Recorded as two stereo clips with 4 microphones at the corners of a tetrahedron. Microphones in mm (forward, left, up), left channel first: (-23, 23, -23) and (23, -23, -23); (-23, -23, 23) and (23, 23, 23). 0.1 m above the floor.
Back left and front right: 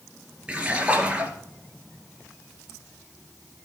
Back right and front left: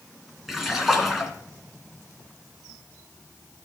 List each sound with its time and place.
0.5 s a splash: 35° right, 1.7 m